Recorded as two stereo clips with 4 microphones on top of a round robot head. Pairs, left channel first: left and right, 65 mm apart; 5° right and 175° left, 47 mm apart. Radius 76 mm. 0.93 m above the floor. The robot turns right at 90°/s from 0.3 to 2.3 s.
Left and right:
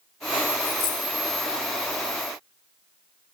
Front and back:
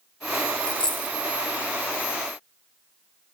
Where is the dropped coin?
55° left, 1.4 m; by 1.2 s 95° left, 1.4 m.